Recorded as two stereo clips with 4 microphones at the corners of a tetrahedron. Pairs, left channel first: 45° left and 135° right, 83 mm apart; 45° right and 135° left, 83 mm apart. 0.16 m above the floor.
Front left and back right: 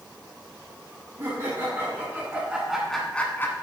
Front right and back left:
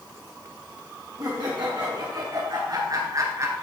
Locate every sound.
1.2 s laughter: straight behind, 2.5 m; by 3.6 s 90° left, 1.5 m